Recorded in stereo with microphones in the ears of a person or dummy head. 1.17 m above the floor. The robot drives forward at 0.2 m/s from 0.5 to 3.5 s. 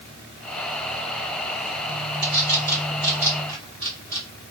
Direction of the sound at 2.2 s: 65° right (ahead or behind).